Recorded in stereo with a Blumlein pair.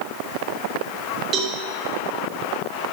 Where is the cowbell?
30° right, 1.5 m.